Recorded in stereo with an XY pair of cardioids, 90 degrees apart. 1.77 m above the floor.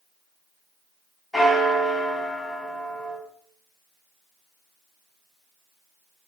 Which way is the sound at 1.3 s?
25° left.